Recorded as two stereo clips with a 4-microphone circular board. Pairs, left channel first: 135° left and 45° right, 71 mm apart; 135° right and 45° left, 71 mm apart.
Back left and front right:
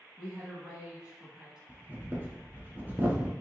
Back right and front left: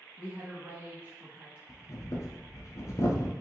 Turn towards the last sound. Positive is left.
turn(degrees=-105)